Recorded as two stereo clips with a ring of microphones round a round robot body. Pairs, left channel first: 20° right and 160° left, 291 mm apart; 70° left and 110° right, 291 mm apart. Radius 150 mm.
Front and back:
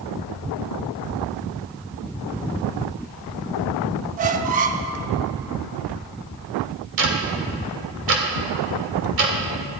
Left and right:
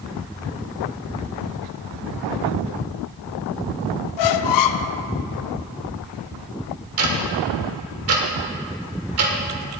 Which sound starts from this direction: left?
A squeak, at 4.2 s.